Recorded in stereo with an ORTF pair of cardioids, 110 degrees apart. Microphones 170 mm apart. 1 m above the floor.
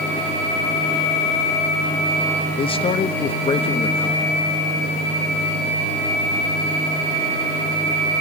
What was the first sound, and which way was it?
A man speaking, 35° left.